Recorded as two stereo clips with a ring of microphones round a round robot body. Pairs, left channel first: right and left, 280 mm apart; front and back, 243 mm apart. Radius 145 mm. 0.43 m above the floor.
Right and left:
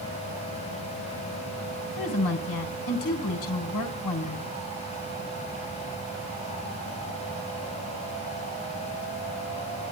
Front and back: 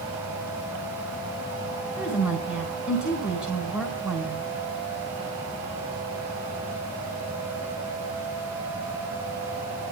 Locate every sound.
2.0 s a woman speaking: 100° right, 4 m